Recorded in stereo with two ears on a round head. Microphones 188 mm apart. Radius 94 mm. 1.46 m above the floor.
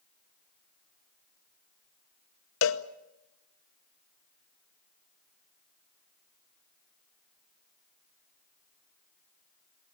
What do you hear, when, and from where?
2.6 s a cowbell: 70° left (ahead or behind), 0.9 m